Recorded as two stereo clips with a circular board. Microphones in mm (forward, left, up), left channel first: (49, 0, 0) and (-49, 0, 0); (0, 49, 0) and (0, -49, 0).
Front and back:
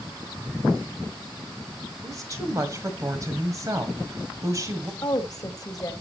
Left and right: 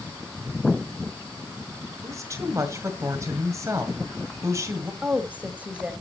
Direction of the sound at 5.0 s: 25° right.